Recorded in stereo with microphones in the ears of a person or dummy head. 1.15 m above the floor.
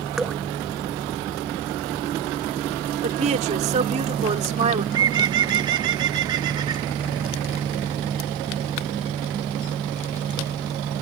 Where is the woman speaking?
40° right (ahead or behind).